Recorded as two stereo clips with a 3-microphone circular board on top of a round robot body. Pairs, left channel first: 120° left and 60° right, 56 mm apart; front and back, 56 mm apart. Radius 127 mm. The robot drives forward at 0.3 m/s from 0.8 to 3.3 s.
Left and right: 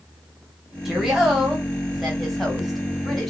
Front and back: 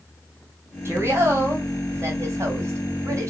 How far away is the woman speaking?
About 2 m.